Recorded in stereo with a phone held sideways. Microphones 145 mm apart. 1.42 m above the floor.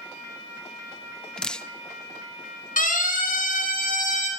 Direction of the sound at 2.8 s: 80° left.